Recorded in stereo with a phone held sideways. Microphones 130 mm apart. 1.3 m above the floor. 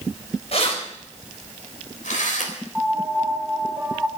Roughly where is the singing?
I don't hear singing.